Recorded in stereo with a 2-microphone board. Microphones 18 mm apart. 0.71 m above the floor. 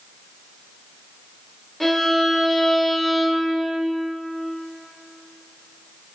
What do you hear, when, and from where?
1.8 s a violin: 5° left (ahead or behind), 0.6 m